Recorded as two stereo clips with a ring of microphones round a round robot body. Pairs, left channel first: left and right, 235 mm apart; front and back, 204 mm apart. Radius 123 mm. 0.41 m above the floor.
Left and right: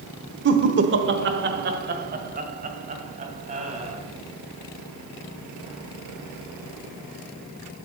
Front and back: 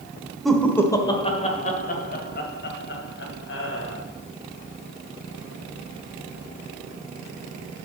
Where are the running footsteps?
I don't hear running footsteps.